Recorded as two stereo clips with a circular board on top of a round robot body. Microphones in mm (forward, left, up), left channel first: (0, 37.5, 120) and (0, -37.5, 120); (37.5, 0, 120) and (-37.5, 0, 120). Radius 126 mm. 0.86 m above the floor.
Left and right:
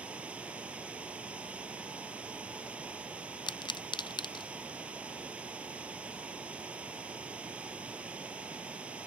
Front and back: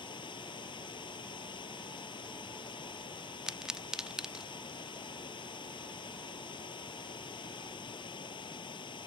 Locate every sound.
0.0 s running water: 15° right
3.5 s a pop: 95° left